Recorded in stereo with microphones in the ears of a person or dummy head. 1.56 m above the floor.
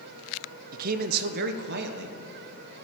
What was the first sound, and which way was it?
A man speaking, 50° right (ahead or behind).